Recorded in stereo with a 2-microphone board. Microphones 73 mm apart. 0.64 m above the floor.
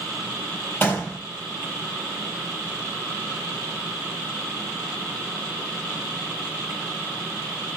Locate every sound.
0.8 s a gunshot: 25° left (ahead or behind), 4 m